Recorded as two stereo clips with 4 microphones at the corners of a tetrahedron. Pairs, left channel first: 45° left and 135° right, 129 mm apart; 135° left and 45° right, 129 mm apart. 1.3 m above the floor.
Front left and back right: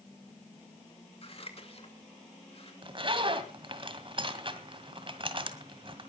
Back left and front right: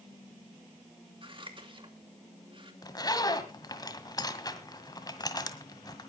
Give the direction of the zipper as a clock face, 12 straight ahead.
6 o'clock.